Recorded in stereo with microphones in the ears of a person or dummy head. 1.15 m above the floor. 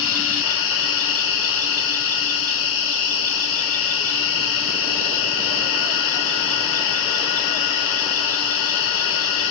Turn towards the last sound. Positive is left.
turn(degrees=75)  # may be behind; listen again after turning